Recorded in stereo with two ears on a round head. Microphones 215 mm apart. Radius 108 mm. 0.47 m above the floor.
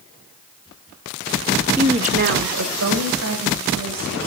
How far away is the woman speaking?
About 0.9 m.